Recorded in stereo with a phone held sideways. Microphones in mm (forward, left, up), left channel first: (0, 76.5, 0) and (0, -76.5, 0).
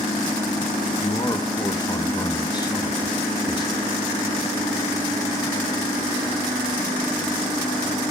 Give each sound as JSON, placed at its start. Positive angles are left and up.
{"t": 1.0, "sound": "a man speaking", "side_deg": 25, "distance_m": 0.8}